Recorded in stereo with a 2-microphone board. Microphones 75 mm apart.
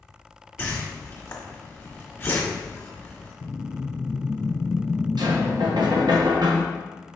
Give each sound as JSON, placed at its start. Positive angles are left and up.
{"t": 0.6, "sound": "a whoosh", "side_deg": 30, "distance_m": 1.3}
{"t": 3.4, "sound": "a whoosh", "side_deg": 35, "distance_m": 0.6}
{"t": 5.2, "sound": "knocking", "side_deg": -70, "distance_m": 0.9}